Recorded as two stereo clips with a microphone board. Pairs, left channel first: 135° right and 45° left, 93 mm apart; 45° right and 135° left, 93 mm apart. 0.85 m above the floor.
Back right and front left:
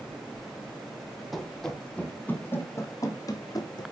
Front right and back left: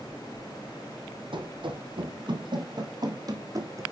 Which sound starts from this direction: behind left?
Running footsteps, at 1.3 s.